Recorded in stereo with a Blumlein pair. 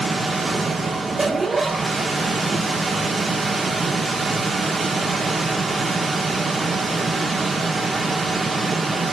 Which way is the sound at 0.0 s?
5° right.